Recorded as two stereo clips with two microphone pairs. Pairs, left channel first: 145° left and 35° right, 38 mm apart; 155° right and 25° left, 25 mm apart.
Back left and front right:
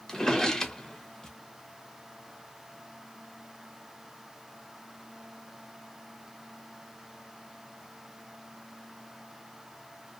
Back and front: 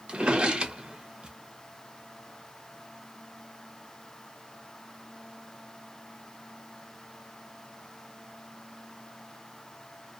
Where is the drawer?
70° left, 0.5 m.